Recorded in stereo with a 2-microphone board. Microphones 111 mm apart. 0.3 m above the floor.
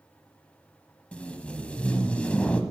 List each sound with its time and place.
1.1 s tape being pulled: 10° left (ahead or behind), 0.5 m